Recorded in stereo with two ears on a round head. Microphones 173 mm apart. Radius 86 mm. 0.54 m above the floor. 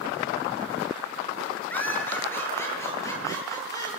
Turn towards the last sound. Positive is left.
turn(degrees=15)  # may be behind; listen again after turning